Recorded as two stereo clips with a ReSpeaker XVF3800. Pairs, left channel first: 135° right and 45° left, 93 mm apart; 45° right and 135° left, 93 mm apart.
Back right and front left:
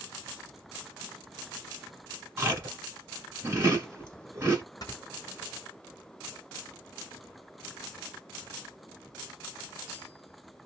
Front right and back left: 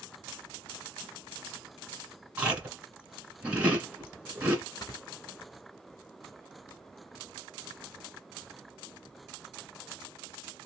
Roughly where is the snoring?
Right.